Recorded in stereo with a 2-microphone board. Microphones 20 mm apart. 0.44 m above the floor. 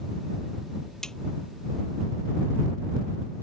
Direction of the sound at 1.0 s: 40° left (ahead or behind).